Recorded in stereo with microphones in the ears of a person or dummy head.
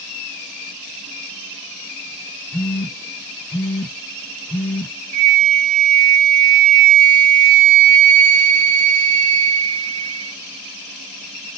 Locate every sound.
2.5 s a phone buzzing: 5° left (ahead or behind), 1.1 m
5.1 s a flute: 70° right (ahead or behind), 0.8 m